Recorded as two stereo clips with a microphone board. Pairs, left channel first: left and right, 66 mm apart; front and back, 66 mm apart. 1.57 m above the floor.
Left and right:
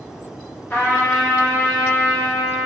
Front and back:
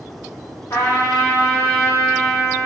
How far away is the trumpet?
About 0.7 m.